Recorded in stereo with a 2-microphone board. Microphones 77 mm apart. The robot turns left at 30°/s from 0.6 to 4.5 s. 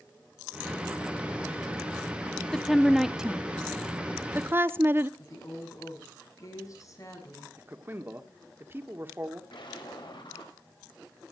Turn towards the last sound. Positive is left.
turn(degrees=70)  # may be behind; listen again after turning